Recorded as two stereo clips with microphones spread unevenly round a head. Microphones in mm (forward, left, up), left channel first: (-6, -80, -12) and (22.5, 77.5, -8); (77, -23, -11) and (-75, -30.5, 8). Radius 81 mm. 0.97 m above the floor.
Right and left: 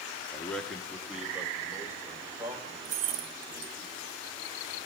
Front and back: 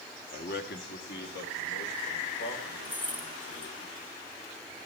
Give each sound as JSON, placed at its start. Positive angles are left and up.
{"t": 0.3, "sound": "a man speaking", "azimuth_deg": -25, "distance_m": 1.8}
{"t": 2.9, "sound": "keys jangling", "azimuth_deg": 80, "distance_m": 0.8}